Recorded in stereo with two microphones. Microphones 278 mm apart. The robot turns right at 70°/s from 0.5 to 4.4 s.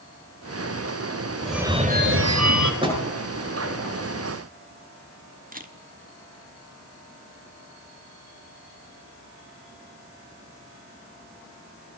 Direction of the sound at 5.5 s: 30° right (ahead or behind).